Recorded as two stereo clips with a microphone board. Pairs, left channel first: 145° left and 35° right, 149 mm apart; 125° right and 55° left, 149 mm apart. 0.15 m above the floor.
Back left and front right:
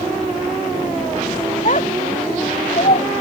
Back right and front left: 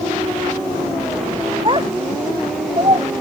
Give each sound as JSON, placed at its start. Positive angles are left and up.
{"t": 1.6, "sound": "a child speaking", "azimuth_deg": 110}